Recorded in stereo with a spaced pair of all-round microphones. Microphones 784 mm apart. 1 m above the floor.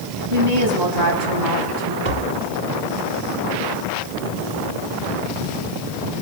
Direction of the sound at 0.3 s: 55° right (ahead or behind).